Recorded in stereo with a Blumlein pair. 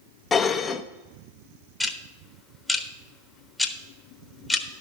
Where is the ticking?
5° left, 1.0 m.